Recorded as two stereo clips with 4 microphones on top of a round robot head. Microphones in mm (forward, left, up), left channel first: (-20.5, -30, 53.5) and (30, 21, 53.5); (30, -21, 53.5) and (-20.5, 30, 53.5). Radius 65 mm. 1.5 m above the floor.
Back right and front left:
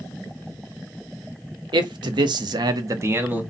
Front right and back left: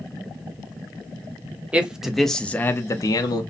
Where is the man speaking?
60° left, 0.7 m; by 3.4 s 25° right, 0.6 m.